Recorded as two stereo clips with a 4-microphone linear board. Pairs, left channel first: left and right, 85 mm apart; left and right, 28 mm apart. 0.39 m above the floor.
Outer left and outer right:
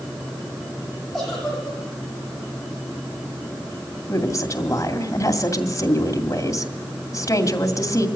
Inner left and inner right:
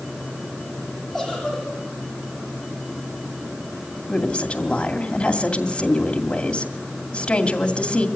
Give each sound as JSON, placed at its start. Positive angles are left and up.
{"t": 1.1, "sound": "a giggle", "side_deg": 5, "distance_m": 10.0}
{"t": 4.1, "sound": "a woman speaking", "side_deg": 40, "distance_m": 2.5}